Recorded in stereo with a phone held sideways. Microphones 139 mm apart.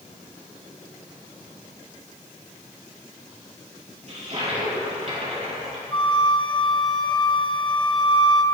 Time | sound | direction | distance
4.1 | a toilet flushing | 50° right (ahead or behind) | 3.5 m
5.9 | a flute | 30° left (ahead or behind) | 0.9 m